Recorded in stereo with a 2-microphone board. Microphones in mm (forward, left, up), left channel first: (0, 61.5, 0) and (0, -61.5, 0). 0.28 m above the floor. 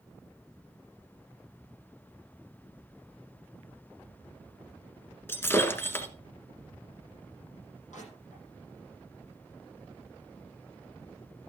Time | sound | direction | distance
5.3 | breaking glass | 20° left (ahead or behind) | 1.6 m
7.9 | crushing | 80° left | 9.5 m